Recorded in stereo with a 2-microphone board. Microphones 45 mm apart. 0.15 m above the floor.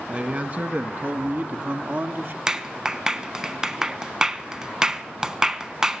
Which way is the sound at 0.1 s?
30° right (ahead or behind).